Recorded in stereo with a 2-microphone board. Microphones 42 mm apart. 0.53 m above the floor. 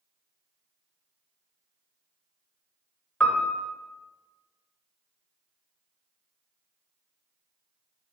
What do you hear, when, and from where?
3.2 s a piano: 30° left (ahead or behind), 1.0 m